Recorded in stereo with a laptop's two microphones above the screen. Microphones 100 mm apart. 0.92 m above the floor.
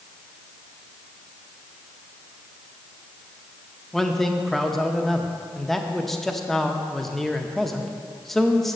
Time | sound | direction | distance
3.9 | a man speaking | 5° left (ahead or behind) | 0.6 m